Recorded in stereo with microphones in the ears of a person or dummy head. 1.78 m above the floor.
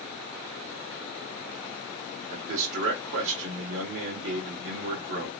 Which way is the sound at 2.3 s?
65° right (ahead or behind).